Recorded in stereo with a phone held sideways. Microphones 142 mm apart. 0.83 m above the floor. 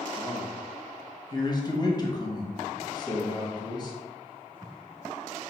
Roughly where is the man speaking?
Left.